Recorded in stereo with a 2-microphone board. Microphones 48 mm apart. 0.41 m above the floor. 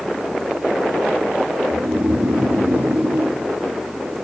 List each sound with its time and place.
1.7 s snoring: 65° right (ahead or behind), 2.0 m